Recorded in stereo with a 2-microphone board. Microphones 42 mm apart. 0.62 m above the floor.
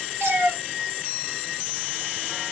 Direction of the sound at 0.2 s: 80° right.